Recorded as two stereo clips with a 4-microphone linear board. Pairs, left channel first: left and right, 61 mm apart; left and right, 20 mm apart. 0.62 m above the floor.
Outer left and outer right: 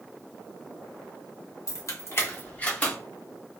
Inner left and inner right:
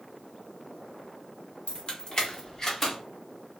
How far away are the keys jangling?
About 0.7 m.